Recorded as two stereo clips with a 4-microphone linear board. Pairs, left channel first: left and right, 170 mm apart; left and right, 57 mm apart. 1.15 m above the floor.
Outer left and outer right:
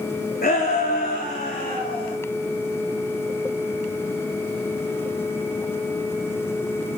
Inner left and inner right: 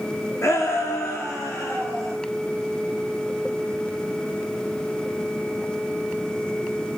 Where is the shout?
60° left (ahead or behind), 2.5 m; by 2.1 s 40° left (ahead or behind), 5 m.